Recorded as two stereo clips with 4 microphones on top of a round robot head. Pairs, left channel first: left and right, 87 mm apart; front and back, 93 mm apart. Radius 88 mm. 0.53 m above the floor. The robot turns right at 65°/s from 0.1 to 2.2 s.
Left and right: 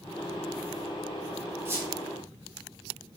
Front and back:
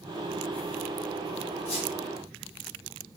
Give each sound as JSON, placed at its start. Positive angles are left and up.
{"t": 1.6, "sound": "a squeak", "azimuth_deg": -30, "distance_m": 1.2}